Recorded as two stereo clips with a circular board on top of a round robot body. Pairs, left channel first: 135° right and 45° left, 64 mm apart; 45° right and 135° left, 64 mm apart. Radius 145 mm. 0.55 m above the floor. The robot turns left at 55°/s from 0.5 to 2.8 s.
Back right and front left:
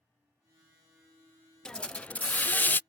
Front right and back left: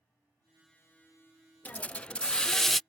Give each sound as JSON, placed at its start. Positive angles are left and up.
{"t": 1.6, "sound": "a hiss", "azimuth_deg": -70}